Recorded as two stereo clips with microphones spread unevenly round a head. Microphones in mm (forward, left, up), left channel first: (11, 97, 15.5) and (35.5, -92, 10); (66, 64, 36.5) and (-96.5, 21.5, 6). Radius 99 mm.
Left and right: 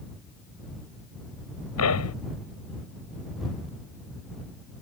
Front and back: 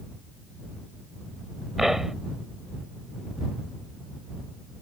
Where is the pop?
105° left.